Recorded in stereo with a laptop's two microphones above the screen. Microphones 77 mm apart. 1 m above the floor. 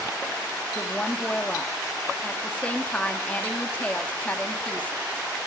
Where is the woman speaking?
20° left (ahead or behind), 2.0 m.